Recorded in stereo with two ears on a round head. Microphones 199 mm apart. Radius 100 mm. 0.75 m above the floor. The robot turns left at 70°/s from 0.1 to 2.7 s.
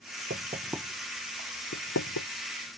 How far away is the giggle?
I don't hear a giggle.